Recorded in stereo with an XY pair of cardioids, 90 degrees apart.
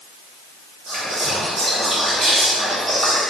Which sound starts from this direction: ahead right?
Whispering, at 0.9 s.